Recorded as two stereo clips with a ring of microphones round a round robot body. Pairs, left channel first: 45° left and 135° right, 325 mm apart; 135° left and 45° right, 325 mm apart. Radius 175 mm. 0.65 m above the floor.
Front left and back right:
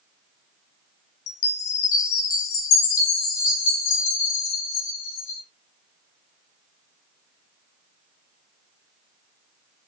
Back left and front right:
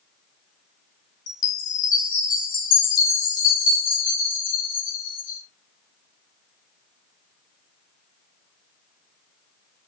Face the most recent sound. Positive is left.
turn(degrees=70)